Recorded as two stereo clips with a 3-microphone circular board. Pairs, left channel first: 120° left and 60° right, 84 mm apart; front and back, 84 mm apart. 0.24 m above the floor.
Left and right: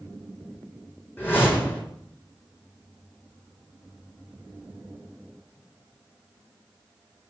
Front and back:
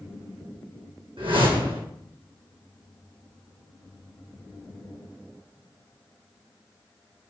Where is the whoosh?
175° right, 3 m.